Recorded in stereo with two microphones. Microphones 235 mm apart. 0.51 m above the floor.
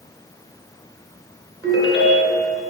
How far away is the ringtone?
About 2 m.